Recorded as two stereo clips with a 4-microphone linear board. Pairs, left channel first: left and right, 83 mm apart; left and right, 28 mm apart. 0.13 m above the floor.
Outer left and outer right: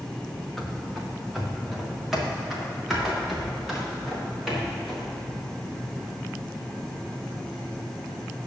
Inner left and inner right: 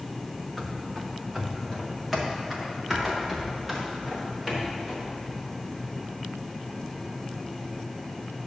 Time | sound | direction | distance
0.6 | running footsteps | 5° left (ahead or behind) | 1.3 m